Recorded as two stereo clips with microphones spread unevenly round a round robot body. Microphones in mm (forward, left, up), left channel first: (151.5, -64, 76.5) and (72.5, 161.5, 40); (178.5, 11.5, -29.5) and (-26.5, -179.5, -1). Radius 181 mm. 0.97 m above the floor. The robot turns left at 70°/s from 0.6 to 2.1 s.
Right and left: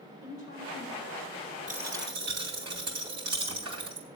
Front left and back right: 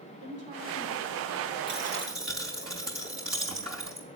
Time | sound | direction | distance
0.2 | a woman speaking | 85° right | 4.5 m
1.7 | a dropped coin | straight behind | 2.5 m